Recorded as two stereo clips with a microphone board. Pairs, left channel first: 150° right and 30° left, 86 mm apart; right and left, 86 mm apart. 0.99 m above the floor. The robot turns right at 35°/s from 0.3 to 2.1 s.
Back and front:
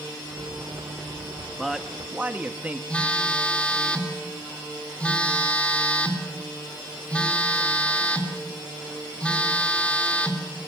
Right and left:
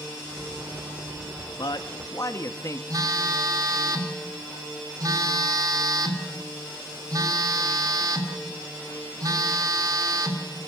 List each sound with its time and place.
1.6 s a man speaking: 60° right, 1.5 m; by 2.8 s 45° right, 1.5 m
2.9 s a phone buzzing: 135° left, 3 m